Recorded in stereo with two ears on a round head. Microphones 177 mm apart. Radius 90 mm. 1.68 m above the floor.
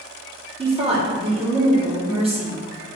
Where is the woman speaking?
35° right (ahead or behind), 2 m.